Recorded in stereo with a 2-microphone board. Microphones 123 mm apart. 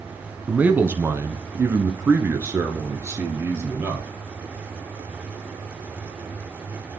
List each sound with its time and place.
0.5 s a man speaking: 15° right (ahead or behind), 1.0 m; by 4.1 s 20° right (ahead or behind), 2.5 m